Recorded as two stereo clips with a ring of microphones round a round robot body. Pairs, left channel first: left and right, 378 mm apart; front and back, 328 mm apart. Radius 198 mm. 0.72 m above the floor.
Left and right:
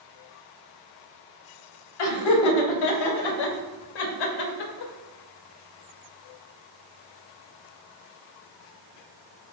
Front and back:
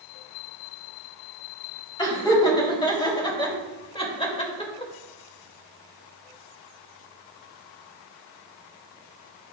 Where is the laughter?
75° left, 3.5 m; by 4.9 s 70° left, 2 m.